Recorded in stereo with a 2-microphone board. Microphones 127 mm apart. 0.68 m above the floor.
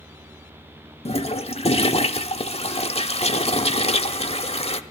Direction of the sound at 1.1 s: 50° left (ahead or behind).